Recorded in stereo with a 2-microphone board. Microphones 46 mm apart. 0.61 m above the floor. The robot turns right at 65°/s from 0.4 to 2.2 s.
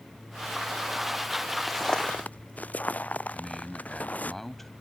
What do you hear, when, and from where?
1.7 s footsteps: centre (ahead or behind); by 4.3 s 35° left (ahead or behind)
3.3 s a man speaking: 5° left (ahead or behind)